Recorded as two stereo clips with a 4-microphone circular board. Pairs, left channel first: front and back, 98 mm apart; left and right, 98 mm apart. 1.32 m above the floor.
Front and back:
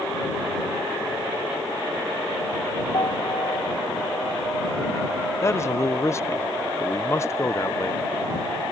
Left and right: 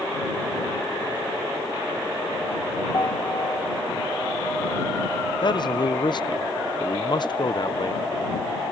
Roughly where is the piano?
Ahead left.